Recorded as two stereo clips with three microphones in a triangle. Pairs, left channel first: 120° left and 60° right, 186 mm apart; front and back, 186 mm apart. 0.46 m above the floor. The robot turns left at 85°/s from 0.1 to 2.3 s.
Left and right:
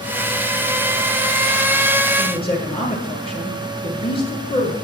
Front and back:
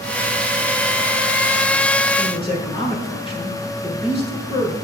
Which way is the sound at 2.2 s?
70° left.